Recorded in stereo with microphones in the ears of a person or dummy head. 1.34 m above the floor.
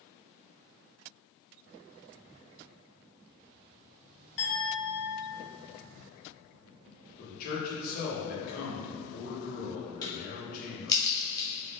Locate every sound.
4.4 s a clink: 65° left (ahead or behind), 1.5 m
7.2 s a man speaking: 50° left (ahead or behind), 1.3 m
10.0 s a crack: 20° left (ahead or behind), 0.8 m